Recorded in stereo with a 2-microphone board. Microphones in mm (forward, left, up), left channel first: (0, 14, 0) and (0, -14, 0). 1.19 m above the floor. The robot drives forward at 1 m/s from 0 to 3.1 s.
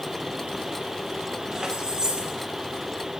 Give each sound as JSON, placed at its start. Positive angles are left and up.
{"t": 1.5, "sound": "keys jangling", "side_deg": -25, "distance_m": 4.5}